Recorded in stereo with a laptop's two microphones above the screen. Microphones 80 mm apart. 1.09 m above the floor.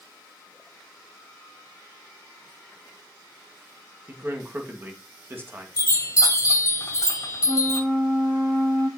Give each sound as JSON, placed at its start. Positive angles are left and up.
{"t": 4.1, "sound": "a man speaking", "side_deg": -30, "distance_m": 1.4}
{"t": 5.8, "sound": "a chime", "side_deg": 45, "distance_m": 2.0}
{"t": 7.5, "sound": "a flute", "side_deg": 25, "distance_m": 4.5}